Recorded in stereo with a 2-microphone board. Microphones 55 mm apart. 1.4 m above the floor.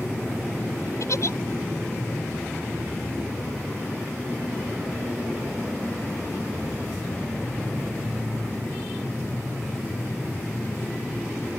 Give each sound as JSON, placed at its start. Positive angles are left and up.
{"t": 1.0, "sound": "a giggle", "side_deg": 65}